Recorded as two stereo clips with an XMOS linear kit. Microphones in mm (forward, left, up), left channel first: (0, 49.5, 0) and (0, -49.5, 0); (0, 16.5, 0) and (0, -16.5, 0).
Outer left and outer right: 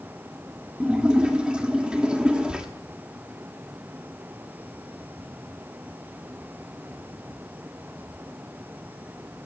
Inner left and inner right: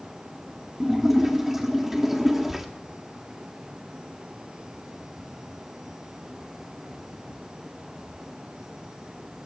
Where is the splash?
10° right (ahead or behind), 1.3 m.